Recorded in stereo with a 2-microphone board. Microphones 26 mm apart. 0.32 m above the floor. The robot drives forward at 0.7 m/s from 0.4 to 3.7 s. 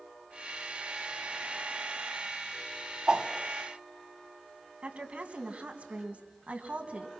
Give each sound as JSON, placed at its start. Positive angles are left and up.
{"t": 3.1, "sound": "a whoosh", "side_deg": -40, "distance_m": 1.6}
{"t": 4.8, "sound": "a woman speaking", "side_deg": -60, "distance_m": 3.0}